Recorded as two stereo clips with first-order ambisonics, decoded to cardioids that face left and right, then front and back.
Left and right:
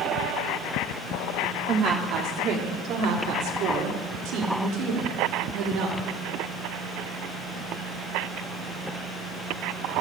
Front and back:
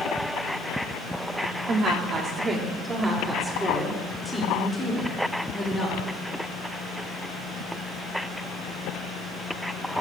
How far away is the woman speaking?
About 1.6 m.